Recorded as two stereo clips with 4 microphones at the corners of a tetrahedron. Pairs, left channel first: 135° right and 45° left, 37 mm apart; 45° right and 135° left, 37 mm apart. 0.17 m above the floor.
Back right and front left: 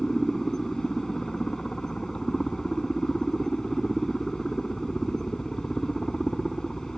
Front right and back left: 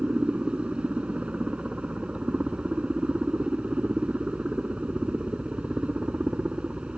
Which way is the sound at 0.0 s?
160° left.